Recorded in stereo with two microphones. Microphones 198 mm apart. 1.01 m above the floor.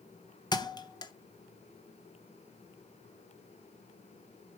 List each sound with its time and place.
0.5 s a thud: 20° left (ahead or behind), 0.6 m